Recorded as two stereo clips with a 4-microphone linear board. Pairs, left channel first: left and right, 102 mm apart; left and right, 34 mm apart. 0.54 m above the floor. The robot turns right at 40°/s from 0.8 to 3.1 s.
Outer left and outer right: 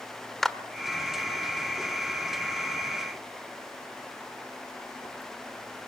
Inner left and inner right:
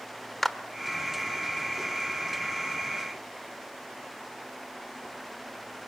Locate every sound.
0.4 s a clap: 5° left (ahead or behind), 1.2 m